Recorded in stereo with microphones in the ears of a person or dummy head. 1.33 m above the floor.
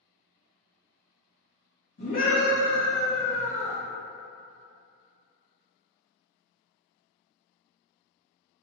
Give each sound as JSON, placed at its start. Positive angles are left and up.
{"t": 2.0, "sound": "a scream", "side_deg": 30, "distance_m": 1.5}